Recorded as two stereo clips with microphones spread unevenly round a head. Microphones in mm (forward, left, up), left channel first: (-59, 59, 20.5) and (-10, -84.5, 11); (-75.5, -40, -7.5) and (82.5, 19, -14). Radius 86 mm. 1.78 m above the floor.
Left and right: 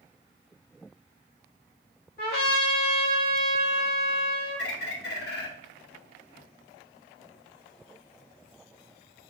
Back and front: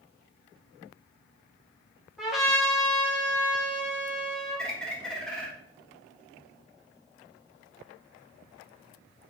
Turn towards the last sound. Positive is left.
turn(degrees=115)